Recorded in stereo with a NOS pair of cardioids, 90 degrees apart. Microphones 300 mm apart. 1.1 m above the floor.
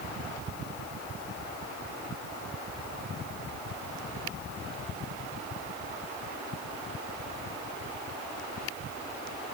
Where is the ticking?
I don't hear ticking.